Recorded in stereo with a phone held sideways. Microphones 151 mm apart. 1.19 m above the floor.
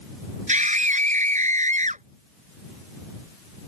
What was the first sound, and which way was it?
A scream, 55° right (ahead or behind).